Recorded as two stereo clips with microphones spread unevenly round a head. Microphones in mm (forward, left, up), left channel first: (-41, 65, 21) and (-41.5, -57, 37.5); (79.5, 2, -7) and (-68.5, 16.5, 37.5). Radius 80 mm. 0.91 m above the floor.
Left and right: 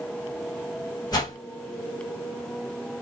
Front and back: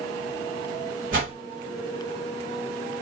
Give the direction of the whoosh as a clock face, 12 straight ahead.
7 o'clock.